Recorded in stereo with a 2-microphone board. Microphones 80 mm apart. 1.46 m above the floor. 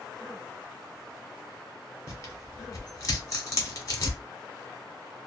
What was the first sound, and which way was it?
Tearing paper, 45° left (ahead or behind).